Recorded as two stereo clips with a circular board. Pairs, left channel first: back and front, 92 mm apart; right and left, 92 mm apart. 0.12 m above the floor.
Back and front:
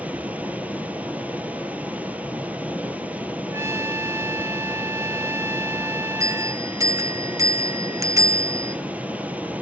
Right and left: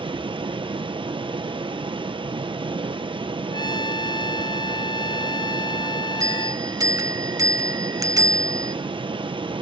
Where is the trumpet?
55° right, 0.6 m.